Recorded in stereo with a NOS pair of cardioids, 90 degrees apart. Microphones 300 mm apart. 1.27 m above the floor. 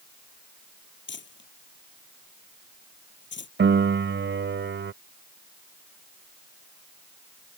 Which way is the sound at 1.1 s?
35° left.